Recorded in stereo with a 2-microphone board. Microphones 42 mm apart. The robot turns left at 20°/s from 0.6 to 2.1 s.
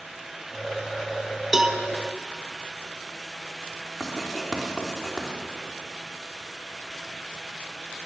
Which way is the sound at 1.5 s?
10° right (ahead or behind).